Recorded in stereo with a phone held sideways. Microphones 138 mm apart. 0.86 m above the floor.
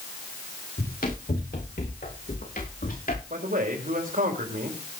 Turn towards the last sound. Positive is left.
turn(degrees=-75)  # may be behind; listen again after turning